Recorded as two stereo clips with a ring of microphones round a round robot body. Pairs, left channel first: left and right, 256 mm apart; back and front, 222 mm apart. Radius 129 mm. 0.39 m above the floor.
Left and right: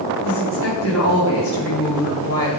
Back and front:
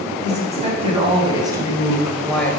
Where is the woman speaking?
55° left, 3.5 m; by 2.6 s 100° left, 2 m.